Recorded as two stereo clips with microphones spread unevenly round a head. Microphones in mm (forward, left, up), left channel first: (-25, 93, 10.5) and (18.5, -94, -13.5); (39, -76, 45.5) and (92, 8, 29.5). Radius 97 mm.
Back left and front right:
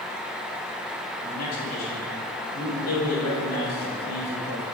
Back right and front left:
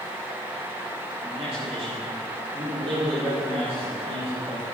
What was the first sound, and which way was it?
A man speaking, 105° left.